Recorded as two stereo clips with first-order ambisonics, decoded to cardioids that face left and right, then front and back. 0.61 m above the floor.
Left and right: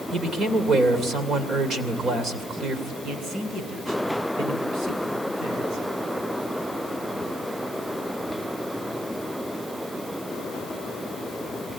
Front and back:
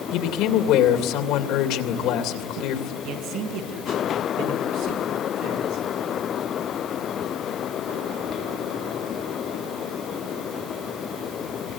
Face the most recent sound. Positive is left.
turn(degrees=-145)